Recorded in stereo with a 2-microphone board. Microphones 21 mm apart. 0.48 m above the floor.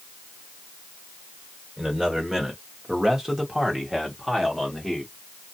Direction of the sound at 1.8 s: 25° right (ahead or behind).